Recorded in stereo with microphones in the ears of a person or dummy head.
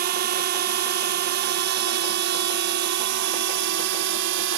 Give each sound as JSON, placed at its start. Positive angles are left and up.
{"t": 0.0, "sound": "a drone", "side_deg": -45}